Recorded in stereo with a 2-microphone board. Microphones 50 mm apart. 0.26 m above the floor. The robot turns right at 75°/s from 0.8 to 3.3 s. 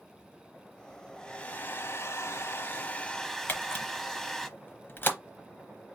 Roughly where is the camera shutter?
Left.